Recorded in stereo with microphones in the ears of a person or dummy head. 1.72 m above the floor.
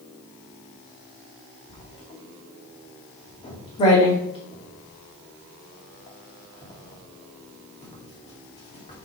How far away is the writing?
About 2.5 m.